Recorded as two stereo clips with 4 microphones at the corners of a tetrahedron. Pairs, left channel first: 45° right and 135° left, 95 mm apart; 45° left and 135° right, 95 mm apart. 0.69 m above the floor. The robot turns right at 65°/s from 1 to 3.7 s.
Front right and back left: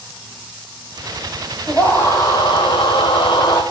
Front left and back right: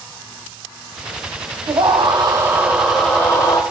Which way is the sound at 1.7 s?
125° right.